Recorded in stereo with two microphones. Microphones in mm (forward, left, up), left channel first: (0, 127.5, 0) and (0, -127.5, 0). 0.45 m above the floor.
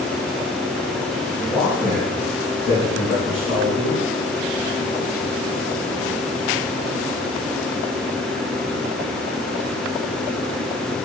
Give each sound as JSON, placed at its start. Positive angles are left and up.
{"t": 1.4, "sound": "a man speaking", "side_deg": 5, "distance_m": 3.0}